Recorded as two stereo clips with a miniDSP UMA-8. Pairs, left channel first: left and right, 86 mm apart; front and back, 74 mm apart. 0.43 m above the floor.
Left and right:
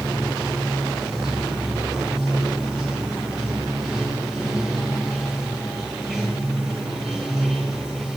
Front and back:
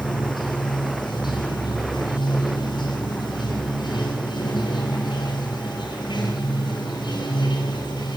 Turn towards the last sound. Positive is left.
turn(degrees=-5)